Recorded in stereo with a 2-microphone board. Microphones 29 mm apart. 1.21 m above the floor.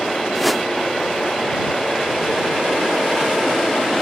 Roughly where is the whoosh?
Centre.